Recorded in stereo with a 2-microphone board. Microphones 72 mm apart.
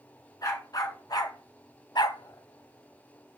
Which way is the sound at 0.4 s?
60° left (ahead or behind).